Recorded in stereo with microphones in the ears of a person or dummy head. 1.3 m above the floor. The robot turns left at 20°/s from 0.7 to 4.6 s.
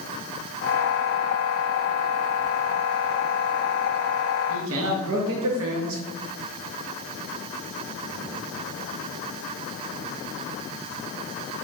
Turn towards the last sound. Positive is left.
turn(degrees=-65)  # may be behind; listen again after turning